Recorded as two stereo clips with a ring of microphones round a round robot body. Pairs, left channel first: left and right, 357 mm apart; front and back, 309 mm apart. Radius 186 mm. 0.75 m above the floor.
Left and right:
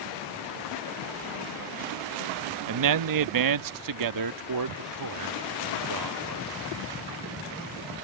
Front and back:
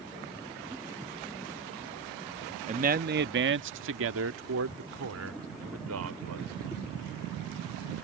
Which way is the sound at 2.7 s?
115° right.